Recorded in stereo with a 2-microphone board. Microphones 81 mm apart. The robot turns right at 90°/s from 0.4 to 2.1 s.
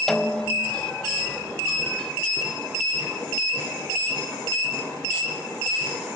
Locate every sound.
0.1 s a snare drum: 5° left, 0.7 m; by 0.8 s 40° left, 0.7 m